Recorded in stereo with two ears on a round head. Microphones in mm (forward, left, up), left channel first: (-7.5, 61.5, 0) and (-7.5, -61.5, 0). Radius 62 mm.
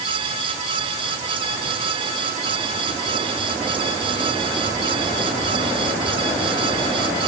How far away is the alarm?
I don't hear an alarm.